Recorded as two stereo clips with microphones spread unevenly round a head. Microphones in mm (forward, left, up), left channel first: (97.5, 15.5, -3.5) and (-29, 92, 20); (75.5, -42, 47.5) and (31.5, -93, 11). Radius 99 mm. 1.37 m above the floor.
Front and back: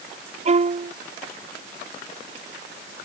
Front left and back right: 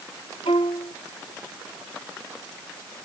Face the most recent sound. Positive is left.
turn(degrees=105)